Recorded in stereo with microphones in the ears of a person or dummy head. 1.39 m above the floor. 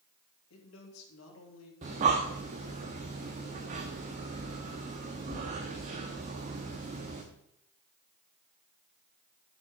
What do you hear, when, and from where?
0.5 s a man speaking: 80° left, 3 m
1.8 s breathing: 20° right (ahead or behind), 0.9 m